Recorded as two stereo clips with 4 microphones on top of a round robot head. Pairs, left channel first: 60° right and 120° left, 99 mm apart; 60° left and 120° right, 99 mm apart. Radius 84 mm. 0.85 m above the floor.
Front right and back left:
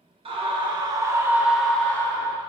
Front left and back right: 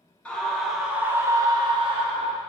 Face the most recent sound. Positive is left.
turn(degrees=-115)